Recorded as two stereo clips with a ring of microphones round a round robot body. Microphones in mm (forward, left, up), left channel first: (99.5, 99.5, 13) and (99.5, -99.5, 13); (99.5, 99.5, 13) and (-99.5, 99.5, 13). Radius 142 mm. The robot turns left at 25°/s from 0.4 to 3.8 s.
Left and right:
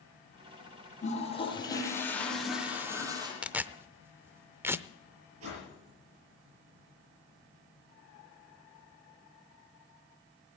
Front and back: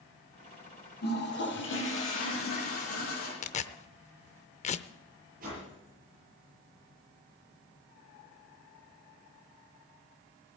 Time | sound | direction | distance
1.0 | a toilet flushing | 35° left | 6.5 m
3.4 | tearing paper | 10° right | 0.6 m
5.4 | a whoosh | 120° right | 8.5 m